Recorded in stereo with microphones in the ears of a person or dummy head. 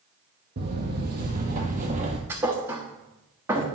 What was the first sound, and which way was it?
Footsteps, 50° right (ahead or behind).